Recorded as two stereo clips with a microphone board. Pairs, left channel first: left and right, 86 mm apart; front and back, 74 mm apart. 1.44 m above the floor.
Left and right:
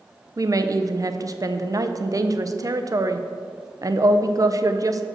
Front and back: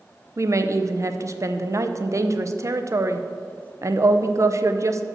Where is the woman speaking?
135° right, 0.5 m.